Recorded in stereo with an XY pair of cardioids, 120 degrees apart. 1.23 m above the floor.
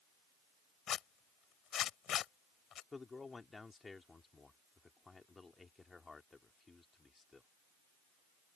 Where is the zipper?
55° left.